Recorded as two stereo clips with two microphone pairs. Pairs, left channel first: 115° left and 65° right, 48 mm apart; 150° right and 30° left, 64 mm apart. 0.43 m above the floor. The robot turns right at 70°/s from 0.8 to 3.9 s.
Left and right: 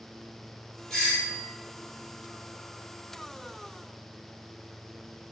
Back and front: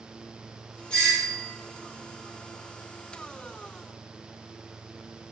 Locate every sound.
0.9 s a doorbell: 165° left, 1.8 m; by 1.5 s 150° right, 1.8 m